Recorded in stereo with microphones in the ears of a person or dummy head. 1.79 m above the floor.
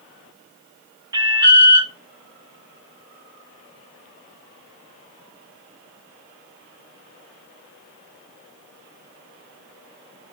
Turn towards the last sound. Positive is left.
turn(degrees=-15)  # may be behind; listen again after turning